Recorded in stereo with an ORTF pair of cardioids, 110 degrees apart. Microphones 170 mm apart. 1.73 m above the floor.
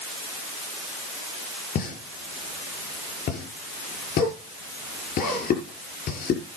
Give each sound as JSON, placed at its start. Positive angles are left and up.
{"t": 1.8, "sound": "a pop", "azimuth_deg": 60, "distance_m": 6.0}